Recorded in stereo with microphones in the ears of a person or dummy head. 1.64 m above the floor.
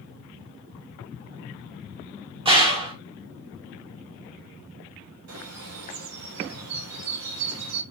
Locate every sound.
2.5 s a gunshot: 25° right (ahead or behind), 0.7 m
5.3 s a bird: 90° right, 0.9 m